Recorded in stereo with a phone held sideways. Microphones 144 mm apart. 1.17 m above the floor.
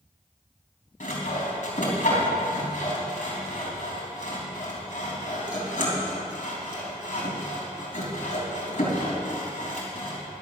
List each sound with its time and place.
1.0 s sawing: 65° left (ahead or behind), 3.5 m